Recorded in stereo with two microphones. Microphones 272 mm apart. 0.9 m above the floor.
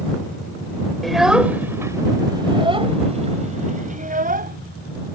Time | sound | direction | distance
1.0 | a child speaking | centre (ahead or behind) | ?